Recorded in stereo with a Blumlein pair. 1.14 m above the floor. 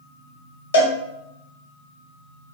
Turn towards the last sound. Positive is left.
turn(degrees=70)